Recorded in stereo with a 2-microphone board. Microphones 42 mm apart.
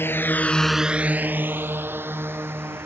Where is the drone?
70° left (ahead or behind); by 2.9 s 65° right (ahead or behind).